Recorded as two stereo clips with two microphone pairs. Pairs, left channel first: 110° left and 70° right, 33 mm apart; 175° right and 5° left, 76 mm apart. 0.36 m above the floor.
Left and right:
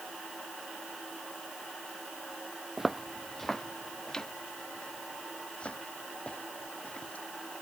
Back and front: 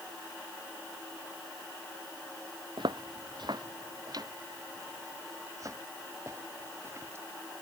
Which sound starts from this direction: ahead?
Footsteps, at 2.8 s.